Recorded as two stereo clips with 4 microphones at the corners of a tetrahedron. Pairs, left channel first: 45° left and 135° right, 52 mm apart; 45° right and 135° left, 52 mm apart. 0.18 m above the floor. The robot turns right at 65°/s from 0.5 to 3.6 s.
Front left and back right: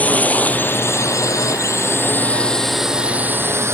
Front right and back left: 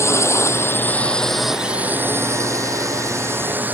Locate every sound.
0.0 s a drone: 15° right; by 3.8 s 170° right